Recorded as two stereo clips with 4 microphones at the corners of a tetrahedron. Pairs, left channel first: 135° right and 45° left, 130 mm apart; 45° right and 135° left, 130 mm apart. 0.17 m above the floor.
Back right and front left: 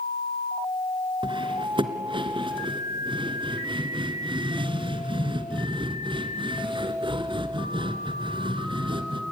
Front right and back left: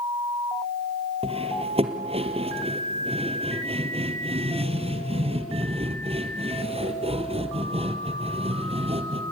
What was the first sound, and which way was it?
Cutlery clinking, 95° left.